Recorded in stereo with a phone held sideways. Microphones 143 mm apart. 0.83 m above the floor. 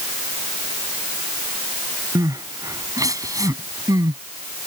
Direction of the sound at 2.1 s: 25° right (ahead or behind).